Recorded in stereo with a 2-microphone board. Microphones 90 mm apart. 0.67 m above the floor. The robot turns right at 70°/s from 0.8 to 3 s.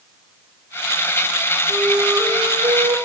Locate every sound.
1.7 s a flute: 170° right, 3.5 m; by 3.0 s 80° right, 3.5 m